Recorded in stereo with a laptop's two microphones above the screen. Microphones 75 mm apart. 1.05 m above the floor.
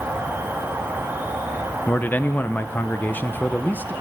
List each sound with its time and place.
0.0 s an insect: 25° right (ahead or behind), 1.4 m
1.9 s a man speaking: 25° left (ahead or behind), 0.6 m